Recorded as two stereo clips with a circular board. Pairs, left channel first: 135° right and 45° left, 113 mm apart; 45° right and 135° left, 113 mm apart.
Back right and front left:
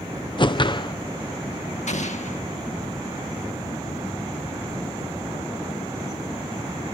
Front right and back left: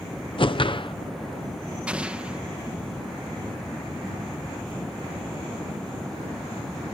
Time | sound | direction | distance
0.4 | a whoosh | 90° right | ?
1.9 | an explosion | 145° right | ?